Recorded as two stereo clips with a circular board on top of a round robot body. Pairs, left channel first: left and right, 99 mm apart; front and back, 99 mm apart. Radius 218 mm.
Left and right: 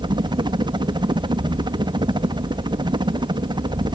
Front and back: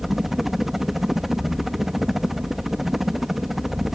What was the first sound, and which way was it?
A helicopter, 95° right.